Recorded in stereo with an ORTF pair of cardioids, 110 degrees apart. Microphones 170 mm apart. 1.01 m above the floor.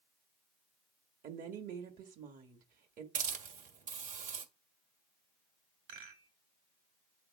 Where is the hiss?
55° right, 1.5 m.